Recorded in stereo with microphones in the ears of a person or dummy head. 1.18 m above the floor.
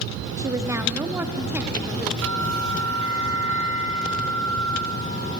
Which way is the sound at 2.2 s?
80° right.